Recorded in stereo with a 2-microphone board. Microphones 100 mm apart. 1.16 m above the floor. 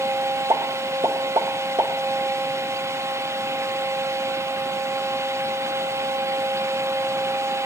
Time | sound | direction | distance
0.5 | a pop | 55° right (ahead or behind) | 1.5 m